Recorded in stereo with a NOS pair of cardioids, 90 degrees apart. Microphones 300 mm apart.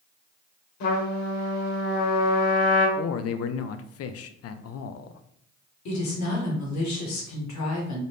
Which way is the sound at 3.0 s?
55° left.